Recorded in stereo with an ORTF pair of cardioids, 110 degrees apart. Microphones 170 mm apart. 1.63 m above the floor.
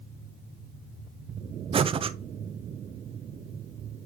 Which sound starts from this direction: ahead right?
Breathing, at 1.7 s.